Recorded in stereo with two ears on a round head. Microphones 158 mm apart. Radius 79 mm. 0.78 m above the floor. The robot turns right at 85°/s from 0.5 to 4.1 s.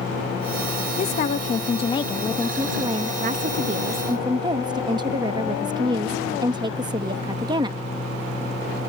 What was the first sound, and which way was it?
A woman speaking, 60° left.